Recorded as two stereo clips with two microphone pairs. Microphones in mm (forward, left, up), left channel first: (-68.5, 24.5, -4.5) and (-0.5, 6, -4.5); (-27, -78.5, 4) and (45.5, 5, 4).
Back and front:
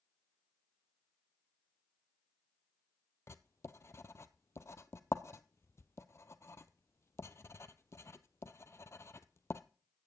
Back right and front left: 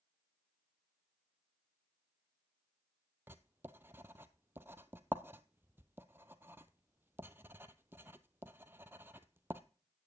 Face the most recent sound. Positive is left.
turn(degrees=120)